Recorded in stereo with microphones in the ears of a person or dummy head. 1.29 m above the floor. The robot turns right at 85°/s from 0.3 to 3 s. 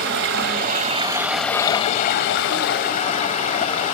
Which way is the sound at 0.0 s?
95° right.